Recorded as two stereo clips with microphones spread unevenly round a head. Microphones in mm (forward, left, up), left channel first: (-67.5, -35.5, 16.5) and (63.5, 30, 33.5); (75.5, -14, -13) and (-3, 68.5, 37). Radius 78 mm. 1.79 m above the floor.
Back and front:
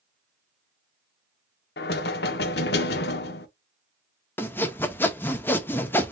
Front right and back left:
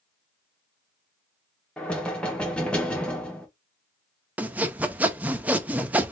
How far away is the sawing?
About 0.7 m.